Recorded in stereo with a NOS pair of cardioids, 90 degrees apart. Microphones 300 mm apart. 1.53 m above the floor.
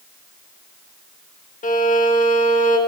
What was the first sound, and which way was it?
A violin, 25° left.